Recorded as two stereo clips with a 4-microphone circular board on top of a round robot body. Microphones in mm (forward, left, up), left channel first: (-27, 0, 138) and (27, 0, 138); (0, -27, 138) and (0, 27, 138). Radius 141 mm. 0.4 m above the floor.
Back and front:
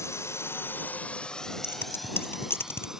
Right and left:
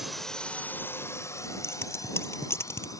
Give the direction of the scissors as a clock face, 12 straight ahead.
4 o'clock.